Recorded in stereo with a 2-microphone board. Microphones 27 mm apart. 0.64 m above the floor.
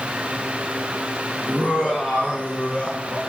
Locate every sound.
1.5 s laughter: 55° left (ahead or behind), 8.5 m; by 3.2 s 60° left (ahead or behind), 9 m